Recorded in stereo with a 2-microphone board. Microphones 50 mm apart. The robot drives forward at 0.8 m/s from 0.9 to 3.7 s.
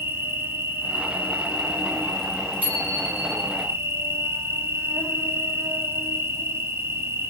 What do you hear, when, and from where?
0.0 s an insect: 50° right (ahead or behind), 2.5 m; by 7.3 s 60° right (ahead or behind), 2 m
2.6 s a bicycle bell: 30° right (ahead or behind), 7 m; by 3.4 s 25° right (ahead or behind), 7.5 m